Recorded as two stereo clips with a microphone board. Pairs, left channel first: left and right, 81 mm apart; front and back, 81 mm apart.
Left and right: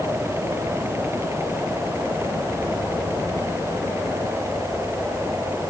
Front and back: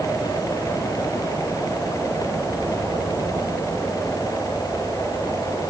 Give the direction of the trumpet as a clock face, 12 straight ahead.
No trumpet in this recording.